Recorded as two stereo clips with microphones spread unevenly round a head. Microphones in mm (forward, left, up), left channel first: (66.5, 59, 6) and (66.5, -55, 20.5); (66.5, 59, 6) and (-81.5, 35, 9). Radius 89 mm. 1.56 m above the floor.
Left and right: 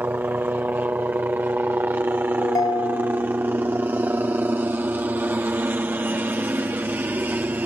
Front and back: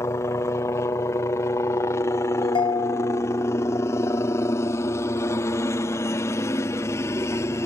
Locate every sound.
0.0 s a helicopter: 30° right
2.4 s a ringtone: 45° left